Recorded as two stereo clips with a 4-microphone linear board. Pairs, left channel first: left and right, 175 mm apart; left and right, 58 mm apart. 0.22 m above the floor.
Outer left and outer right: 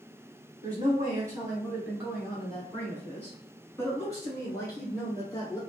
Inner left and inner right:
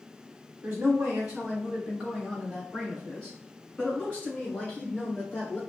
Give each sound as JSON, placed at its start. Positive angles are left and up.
{"t": 0.6, "sound": "a woman speaking", "side_deg": -25, "distance_m": 1.3}